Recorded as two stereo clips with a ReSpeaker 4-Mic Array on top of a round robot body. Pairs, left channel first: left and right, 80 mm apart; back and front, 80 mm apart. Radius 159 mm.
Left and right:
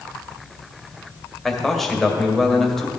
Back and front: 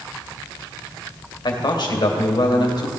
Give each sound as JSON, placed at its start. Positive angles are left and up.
{"t": 1.4, "sound": "a man speaking", "azimuth_deg": 175, "distance_m": 2.0}